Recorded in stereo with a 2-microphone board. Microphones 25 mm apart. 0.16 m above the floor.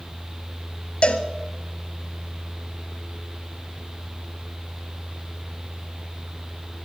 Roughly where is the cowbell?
Left.